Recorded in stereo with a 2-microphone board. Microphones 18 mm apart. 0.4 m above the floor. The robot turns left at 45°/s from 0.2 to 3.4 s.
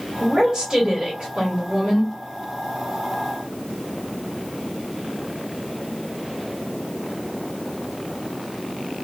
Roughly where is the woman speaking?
Ahead right.